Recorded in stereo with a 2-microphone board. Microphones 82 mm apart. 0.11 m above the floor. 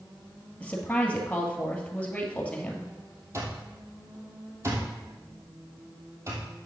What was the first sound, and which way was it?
A woman speaking, 15° left (ahead or behind).